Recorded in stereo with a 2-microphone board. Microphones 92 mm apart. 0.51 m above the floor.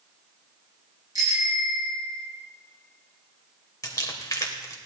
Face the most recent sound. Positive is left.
turn(degrees=40)  # may be behind; listen again after turning